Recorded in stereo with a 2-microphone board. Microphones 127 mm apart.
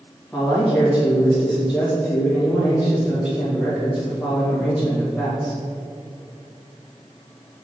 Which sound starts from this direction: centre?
A man speaking, at 0.3 s.